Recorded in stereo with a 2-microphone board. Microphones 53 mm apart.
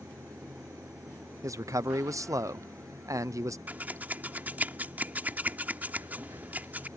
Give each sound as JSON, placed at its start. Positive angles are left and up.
{"t": 0.0, "sound": "running water", "side_deg": -80}
{"t": 1.4, "sound": "a man speaking", "side_deg": -80}
{"t": 3.7, "sound": "scissors", "side_deg": -30}